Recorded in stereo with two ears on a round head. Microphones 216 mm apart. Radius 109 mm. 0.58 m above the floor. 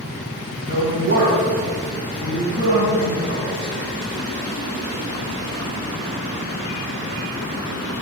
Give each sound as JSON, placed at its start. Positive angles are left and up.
{"t": 0.7, "sound": "a woman speaking", "side_deg": -45, "distance_m": 3.0}